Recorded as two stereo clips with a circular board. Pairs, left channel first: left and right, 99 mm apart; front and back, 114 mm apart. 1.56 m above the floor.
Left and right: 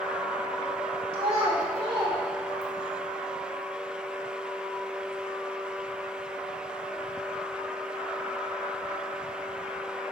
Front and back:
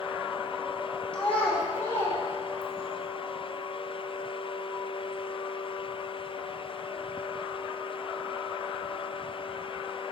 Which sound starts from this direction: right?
A child speaking, at 1.1 s.